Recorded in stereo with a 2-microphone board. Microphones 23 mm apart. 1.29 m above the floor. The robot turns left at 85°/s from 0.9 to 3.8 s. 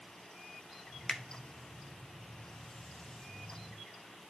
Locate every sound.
1.1 s a finger snap: 20° left (ahead or behind), 0.8 m; by 1.2 s 10° left (ahead or behind), 0.8 m